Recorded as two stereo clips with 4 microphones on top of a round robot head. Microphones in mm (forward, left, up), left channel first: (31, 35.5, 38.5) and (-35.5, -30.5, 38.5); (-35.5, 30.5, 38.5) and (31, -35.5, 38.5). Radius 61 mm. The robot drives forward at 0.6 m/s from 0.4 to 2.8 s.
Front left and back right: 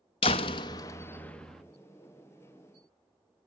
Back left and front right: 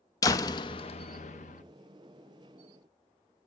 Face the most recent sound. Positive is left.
turn(degrees=155)